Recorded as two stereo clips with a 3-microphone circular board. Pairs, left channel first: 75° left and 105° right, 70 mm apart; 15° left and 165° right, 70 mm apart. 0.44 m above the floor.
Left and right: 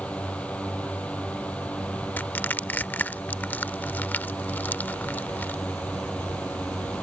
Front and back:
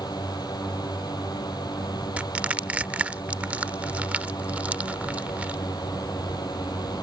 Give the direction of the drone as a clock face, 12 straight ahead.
12 o'clock.